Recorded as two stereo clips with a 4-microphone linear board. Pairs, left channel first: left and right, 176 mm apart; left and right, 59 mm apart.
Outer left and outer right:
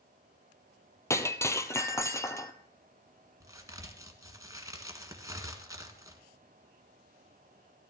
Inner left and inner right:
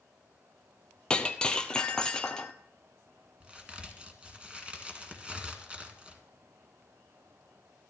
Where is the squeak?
No squeak in this recording.